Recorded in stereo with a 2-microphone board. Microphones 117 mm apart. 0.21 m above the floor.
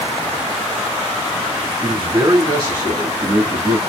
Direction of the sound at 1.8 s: 40° right (ahead or behind).